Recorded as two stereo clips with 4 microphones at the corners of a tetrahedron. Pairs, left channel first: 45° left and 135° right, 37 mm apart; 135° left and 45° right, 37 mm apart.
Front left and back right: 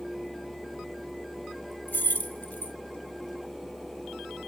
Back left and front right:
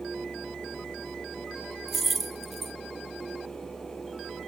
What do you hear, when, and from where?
1.9 s keys jangling: 45° left, 1.0 m